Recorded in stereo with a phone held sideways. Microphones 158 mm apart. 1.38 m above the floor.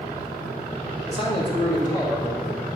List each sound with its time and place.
1.1 s a man speaking: 40° left (ahead or behind), 3 m; by 2.4 s 15° left (ahead or behind), 3 m